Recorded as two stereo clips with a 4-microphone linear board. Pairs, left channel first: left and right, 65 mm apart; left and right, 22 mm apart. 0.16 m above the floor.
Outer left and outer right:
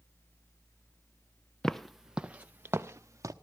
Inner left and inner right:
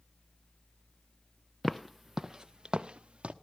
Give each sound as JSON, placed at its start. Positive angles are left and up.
{"t": 1.6, "sound": "footsteps", "side_deg": 10, "distance_m": 0.7}